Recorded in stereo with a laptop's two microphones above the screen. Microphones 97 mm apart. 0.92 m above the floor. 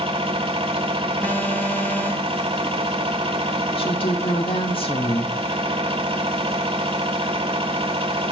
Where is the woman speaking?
65° left (ahead or behind), 1.7 m.